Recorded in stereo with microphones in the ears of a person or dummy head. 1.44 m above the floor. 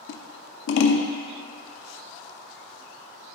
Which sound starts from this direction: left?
Scissors, at 0.1 s.